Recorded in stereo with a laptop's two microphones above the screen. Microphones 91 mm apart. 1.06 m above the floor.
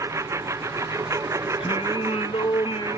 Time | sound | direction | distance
0.0 | a lawn mower | 35° right (ahead or behind) | ?
1.6 | singing | 70° left (ahead or behind) | ?